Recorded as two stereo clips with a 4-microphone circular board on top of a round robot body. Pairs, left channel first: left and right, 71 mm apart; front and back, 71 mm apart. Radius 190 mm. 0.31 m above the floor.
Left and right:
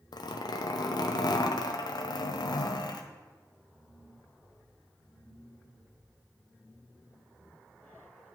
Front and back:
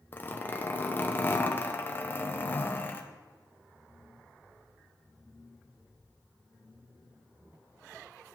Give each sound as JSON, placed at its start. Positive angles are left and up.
{"t": 0.1, "sound": "a zipper", "azimuth_deg": 65, "distance_m": 0.6}